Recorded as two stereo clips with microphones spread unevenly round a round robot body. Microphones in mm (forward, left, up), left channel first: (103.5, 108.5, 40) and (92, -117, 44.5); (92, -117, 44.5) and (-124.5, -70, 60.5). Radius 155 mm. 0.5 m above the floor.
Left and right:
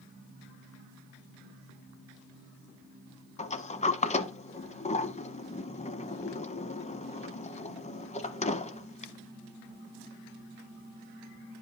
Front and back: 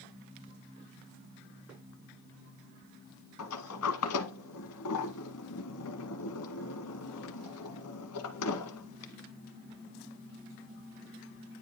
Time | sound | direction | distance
3.4 | a sliding door | 25° left | 1.1 m